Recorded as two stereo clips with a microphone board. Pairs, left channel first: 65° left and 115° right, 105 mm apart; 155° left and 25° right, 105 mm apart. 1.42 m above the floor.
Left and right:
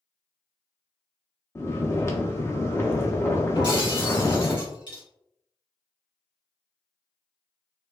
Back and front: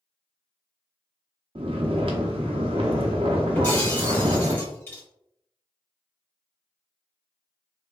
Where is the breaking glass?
100° left, 1.5 m.